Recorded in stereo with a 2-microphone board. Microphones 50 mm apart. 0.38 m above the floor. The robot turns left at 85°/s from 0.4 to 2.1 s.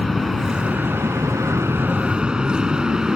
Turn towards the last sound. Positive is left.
turn(degrees=-10)  # may be behind; listen again after turning